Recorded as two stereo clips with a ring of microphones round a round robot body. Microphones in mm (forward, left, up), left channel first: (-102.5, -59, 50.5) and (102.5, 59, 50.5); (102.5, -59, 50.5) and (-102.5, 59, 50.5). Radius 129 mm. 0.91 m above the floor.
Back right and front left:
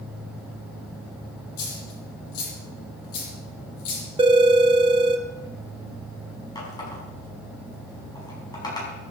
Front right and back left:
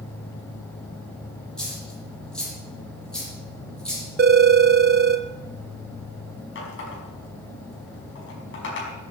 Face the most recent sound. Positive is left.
turn(degrees=-75)